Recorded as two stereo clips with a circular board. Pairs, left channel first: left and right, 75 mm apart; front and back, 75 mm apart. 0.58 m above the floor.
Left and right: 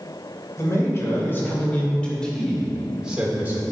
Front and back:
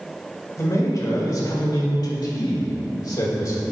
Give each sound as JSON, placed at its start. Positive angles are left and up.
{"t": 0.6, "sound": "a man speaking", "azimuth_deg": 45, "distance_m": 2.0}